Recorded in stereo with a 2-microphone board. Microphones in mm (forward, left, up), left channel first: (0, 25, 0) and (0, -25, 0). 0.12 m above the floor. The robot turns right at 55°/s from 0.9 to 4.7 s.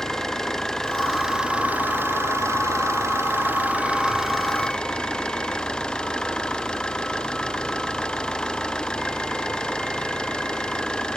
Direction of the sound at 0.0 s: 170° left.